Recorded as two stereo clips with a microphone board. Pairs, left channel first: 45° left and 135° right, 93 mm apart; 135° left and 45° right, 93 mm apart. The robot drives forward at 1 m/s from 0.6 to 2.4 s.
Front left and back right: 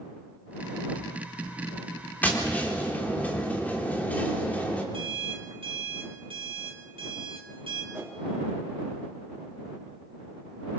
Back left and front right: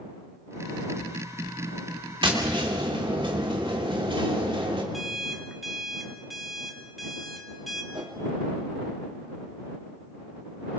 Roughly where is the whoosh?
Right.